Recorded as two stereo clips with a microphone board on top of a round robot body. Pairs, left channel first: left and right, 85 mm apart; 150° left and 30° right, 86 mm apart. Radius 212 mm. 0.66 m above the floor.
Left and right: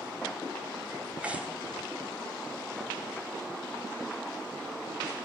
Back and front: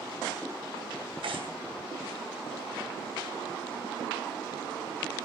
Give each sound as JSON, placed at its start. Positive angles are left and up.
{"t": 1.2, "sound": "tearing paper", "azimuth_deg": -15, "distance_m": 3.0}